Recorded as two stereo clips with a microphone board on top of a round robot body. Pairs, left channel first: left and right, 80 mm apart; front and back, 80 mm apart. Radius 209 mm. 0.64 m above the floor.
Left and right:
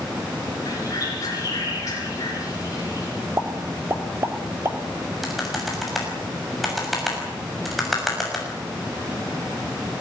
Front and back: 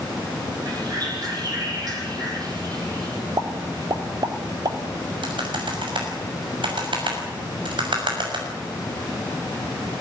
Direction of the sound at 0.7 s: 140° left.